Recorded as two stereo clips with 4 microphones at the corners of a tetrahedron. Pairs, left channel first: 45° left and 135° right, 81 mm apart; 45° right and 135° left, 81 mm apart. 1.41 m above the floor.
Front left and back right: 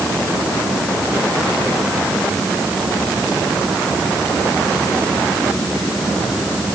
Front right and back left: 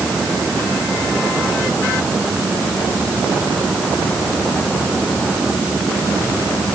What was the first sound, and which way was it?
Only background noise.